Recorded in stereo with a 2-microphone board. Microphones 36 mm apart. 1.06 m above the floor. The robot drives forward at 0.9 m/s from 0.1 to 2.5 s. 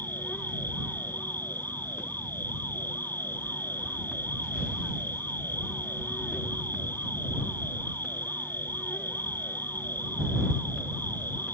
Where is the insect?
70° left (ahead or behind); by 11.5 s 75° left (ahead or behind).